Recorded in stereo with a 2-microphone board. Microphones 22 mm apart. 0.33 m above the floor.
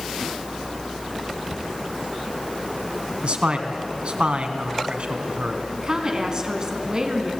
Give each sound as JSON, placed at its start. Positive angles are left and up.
{"t": 1.5, "sound": "a cupboard door", "side_deg": -30, "distance_m": 4.0}
{"t": 3.2, "sound": "a man speaking", "side_deg": -60, "distance_m": 3.0}
{"t": 5.8, "sound": "a woman speaking", "side_deg": -35, "distance_m": 3.5}